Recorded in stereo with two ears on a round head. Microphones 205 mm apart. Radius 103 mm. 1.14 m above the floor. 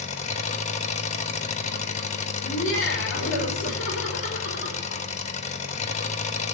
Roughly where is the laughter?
Left.